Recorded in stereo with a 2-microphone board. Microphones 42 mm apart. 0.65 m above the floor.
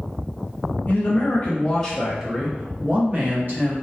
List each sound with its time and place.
0.9 s a man speaking: 35° left (ahead or behind), 1.0 m; by 3.8 s 50° right (ahead or behind), 1.2 m